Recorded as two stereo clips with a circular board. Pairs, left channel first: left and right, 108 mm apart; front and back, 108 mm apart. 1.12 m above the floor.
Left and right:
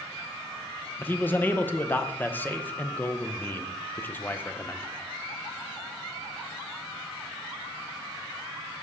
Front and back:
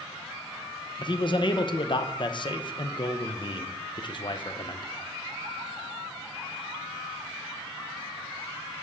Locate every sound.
1.0 s a man speaking: 25° left, 0.7 m